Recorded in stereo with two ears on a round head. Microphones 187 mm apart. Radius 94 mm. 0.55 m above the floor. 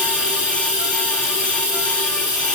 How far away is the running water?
About 1.3 m.